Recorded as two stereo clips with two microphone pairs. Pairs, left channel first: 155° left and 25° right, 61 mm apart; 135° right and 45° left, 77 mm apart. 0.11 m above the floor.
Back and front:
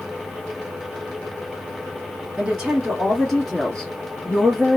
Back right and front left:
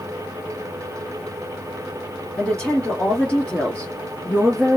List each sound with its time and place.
2.4 s a woman speaking: 75° right, 1.6 m; by 4.8 s 165° left, 1.6 m